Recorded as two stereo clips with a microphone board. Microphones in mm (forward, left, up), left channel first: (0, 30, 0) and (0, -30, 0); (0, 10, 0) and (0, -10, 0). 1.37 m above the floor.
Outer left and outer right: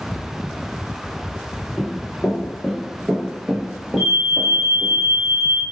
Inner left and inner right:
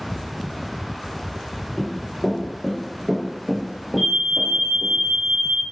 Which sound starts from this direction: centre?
An alarm, at 4.0 s.